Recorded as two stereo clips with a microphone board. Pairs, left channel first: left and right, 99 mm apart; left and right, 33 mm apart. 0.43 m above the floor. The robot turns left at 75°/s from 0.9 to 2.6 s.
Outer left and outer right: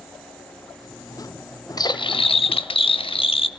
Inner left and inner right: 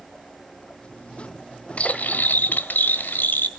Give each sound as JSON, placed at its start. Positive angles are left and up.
{"t": 1.8, "sound": "cutlery clinking", "azimuth_deg": 135, "distance_m": 1.0}